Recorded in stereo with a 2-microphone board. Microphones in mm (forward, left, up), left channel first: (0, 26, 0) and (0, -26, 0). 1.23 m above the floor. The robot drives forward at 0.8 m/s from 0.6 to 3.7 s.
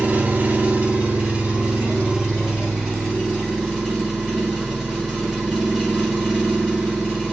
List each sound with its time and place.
0.0 s an engine running: 30° right (ahead or behind), 1.2 m; by 7.3 s 10° right (ahead or behind), 3.5 m